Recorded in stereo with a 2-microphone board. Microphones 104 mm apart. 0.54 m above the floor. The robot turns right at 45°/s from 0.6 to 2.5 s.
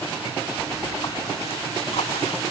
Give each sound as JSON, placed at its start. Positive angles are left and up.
{"t": 0.6, "sound": "a splash", "azimuth_deg": 25}